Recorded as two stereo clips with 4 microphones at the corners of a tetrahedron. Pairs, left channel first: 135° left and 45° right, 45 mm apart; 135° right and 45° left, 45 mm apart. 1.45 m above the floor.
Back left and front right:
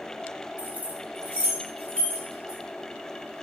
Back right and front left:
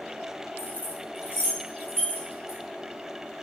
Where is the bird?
No bird in this recording.